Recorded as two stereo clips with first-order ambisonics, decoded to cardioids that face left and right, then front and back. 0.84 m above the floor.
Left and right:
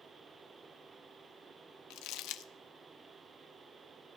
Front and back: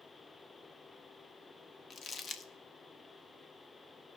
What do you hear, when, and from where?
1.9 s crumpling: 70° left, 0.5 m